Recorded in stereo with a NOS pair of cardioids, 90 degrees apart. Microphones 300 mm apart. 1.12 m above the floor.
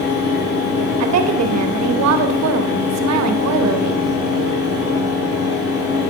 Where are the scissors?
No scissors in this recording.